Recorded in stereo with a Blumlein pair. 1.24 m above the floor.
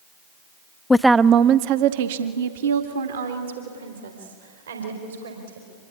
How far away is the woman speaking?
About 0.6 m.